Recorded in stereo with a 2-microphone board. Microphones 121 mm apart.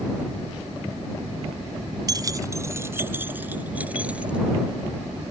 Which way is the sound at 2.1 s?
35° right (ahead or behind).